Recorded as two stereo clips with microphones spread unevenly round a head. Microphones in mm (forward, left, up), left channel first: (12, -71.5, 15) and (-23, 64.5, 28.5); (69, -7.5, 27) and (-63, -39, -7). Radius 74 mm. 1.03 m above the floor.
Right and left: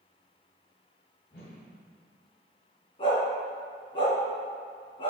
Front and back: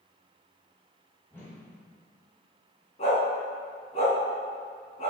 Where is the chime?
No chime in this recording.